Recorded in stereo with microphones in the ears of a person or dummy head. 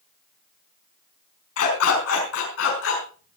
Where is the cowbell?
I don't hear a cowbell.